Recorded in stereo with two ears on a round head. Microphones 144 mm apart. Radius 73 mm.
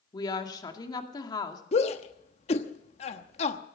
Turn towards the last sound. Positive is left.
turn(degrees=40)  # may be behind; listen again after turning